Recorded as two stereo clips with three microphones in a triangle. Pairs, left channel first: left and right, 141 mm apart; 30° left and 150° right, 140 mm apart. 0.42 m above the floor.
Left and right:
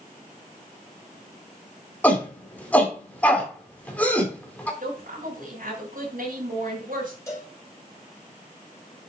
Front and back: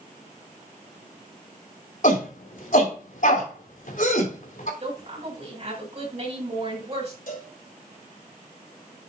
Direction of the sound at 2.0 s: 10° left.